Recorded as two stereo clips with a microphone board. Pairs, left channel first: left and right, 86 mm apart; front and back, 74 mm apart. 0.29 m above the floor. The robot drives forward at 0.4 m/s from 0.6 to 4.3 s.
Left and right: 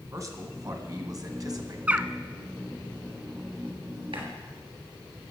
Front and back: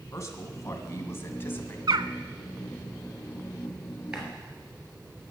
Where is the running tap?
100° right, 3 m.